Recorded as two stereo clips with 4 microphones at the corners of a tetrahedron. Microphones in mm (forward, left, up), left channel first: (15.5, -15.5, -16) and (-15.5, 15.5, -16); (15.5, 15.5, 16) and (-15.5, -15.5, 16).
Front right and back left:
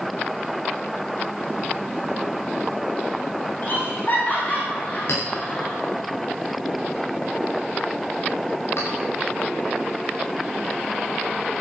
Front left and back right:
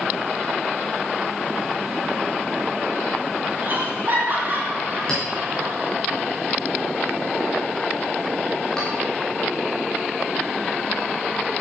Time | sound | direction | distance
3.6 | laughter | 90° right | 6.5 m
5.1 | a clink | 30° right | 7.5 m